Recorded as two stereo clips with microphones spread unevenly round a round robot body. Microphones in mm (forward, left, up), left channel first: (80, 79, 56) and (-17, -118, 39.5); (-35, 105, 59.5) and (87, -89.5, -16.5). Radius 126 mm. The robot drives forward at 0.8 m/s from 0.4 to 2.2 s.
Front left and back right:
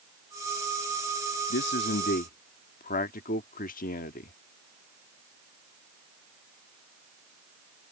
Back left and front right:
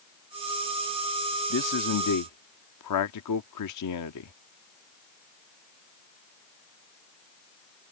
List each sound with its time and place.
1.5 s a man speaking: 90° left; by 4.3 s 115° left